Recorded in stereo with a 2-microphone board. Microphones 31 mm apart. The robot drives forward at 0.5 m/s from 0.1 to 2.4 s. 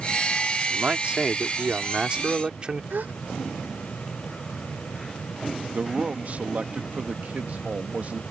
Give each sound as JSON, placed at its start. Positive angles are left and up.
{"t": 0.7, "sound": "a man speaking", "side_deg": -40}
{"t": 2.9, "sound": "a gasp", "side_deg": -70}
{"t": 5.7, "sound": "a man speaking", "side_deg": -55}